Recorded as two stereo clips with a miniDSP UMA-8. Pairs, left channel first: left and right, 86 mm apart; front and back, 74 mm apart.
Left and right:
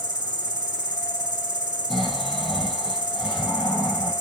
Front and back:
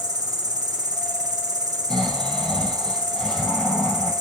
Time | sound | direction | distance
0.0 | an insect | 140° left | 3 m
1.9 | snoring | 75° left | 6.5 m